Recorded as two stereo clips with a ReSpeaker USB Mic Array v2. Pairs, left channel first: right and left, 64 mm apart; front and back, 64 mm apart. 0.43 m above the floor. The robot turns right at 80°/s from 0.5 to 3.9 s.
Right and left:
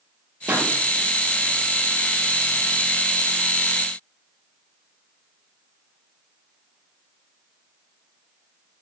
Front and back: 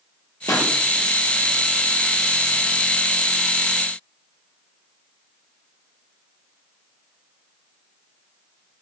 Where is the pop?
25° left, 4.5 m; by 0.7 s 40° left, 4.5 m.